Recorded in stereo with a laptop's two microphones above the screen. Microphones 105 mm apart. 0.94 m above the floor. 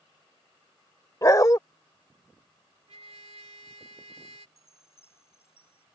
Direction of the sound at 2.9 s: 75° right (ahead or behind).